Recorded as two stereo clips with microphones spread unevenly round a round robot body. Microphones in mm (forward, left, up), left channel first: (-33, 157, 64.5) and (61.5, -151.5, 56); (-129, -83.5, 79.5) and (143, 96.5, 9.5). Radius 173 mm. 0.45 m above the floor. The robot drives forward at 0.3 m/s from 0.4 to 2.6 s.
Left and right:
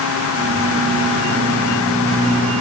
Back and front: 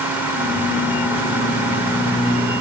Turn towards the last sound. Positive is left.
No sound to turn to.